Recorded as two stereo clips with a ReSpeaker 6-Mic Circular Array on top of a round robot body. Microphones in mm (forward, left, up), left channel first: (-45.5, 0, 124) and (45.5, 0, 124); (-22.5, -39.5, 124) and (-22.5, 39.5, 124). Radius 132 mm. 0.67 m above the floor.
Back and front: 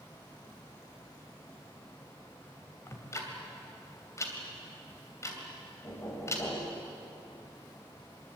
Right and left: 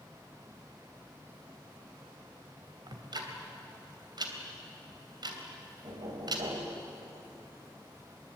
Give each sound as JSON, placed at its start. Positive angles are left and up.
{"t": 2.9, "sound": "ticking", "azimuth_deg": 120, "distance_m": 3.0}
{"t": 5.8, "sound": "knocking", "azimuth_deg": 120, "distance_m": 3.0}